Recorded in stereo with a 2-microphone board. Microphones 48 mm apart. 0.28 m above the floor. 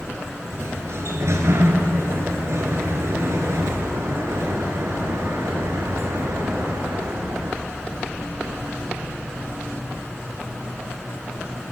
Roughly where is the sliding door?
Right.